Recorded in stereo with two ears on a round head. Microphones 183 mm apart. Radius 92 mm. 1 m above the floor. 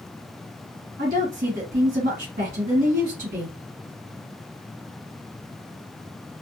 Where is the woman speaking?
40° right (ahead or behind), 1.5 m.